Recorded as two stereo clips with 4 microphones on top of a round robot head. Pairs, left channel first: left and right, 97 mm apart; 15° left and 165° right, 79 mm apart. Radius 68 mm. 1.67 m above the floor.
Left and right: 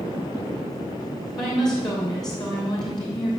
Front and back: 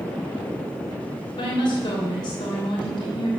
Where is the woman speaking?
40° left, 3 m.